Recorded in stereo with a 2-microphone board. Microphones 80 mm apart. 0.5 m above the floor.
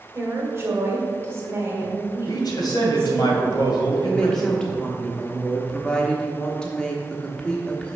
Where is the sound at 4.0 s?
10° left (ahead or behind), 0.9 m.